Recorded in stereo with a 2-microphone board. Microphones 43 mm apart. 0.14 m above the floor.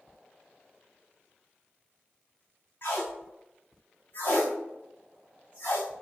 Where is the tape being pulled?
45° left (ahead or behind), 4.5 m.